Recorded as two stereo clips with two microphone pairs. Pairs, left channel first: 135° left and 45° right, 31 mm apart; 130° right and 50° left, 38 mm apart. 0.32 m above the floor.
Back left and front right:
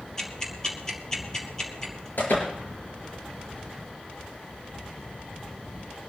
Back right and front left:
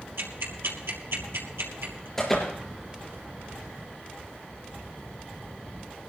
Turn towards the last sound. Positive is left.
turn(degrees=150)